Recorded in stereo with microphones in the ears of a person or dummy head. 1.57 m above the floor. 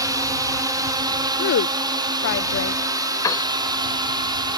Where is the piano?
20° left (ahead or behind).